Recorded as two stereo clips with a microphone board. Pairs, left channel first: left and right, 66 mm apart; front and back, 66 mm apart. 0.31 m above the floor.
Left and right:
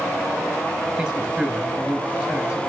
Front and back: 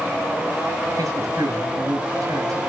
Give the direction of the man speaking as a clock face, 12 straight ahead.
6 o'clock.